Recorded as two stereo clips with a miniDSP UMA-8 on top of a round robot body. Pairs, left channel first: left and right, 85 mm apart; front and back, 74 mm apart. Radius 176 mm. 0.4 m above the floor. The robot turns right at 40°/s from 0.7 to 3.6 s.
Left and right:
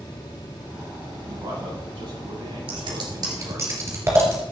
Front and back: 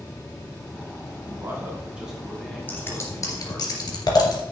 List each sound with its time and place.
1.3 s a man speaking: 140° right, 4 m; by 3.7 s 45° right, 4 m
2.7 s scissors: 65° right, 1.9 m; by 4.4 s 30° right, 1.9 m